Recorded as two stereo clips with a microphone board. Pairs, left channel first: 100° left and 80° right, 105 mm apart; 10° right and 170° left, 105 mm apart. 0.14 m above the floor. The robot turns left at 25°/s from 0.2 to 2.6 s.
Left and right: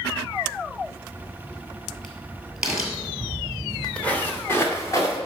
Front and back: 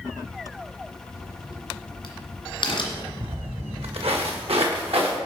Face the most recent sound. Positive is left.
turn(degrees=160)